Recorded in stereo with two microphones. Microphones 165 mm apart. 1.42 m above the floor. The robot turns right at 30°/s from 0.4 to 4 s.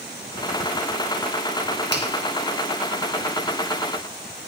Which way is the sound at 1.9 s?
85° right.